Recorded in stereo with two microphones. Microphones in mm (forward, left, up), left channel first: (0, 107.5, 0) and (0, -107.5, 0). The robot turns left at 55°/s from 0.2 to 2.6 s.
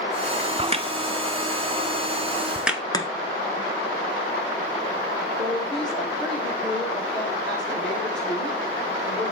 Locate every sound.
0.6 s a crack: 25° right (ahead or behind), 0.6 m; by 2.8 s 5° right (ahead or behind), 0.6 m
2.9 s chopping: 20° left (ahead or behind), 0.9 m
5.4 s a woman speaking: 5° left (ahead or behind), 4.5 m